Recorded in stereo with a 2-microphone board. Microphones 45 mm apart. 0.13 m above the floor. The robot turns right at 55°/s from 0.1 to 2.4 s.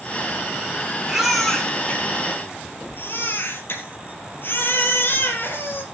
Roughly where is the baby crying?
Ahead.